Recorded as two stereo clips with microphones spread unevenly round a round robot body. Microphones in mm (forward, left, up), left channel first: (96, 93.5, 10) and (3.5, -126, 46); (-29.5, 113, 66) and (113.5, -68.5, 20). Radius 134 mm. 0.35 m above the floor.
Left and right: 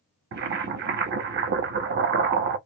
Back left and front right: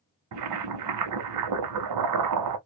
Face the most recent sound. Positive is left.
turn(degrees=-65)